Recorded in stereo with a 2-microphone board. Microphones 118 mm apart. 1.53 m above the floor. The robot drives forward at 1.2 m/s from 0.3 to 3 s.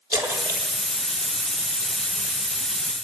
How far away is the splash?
About 3.5 m.